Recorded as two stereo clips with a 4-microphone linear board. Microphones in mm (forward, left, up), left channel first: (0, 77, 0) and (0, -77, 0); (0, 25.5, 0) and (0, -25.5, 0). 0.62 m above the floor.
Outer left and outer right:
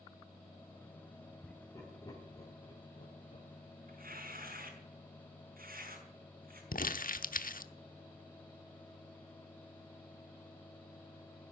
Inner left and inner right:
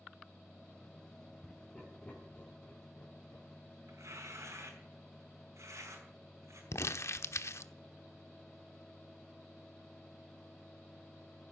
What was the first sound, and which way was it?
Laughter, 15° left (ahead or behind).